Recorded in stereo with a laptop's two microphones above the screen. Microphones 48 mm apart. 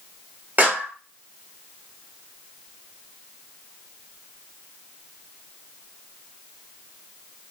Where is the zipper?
I don't hear a zipper.